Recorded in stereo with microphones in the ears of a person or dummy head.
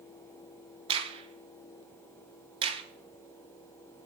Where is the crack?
25° right (ahead or behind), 0.9 m.